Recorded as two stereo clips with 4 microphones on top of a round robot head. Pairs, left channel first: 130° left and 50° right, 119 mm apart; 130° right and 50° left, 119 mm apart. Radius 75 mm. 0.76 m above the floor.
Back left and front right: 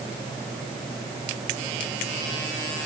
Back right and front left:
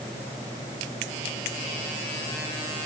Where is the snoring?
No snoring in this recording.